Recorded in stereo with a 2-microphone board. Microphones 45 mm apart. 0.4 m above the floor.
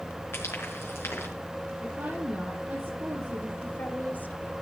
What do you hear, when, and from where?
0.3 s frying: 65° left (ahead or behind), 5 m
1.8 s a woman speaking: 50° right (ahead or behind), 7.5 m
3.6 s a woman speaking: 45° left (ahead or behind), 1.9 m